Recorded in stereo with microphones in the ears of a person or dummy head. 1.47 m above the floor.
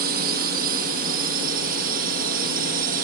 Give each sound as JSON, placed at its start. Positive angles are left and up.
{"t": 0.0, "sound": "a drone", "side_deg": -50}